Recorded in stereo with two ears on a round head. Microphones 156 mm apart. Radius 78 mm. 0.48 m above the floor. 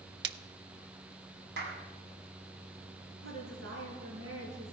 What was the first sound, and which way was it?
A splash, 70° right (ahead or behind).